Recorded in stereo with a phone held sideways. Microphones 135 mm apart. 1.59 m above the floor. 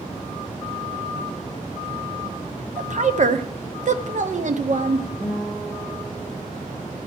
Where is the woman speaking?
60° right (ahead or behind), 1.0 m.